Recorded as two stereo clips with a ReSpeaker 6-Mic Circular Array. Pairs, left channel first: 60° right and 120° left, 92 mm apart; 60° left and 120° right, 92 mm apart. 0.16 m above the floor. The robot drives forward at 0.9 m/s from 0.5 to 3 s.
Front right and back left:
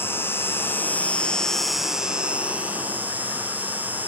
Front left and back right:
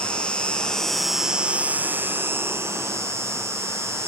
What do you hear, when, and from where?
0.0 s an insect: 15° right, 1.3 m; by 4.1 s 175° right, 1.8 m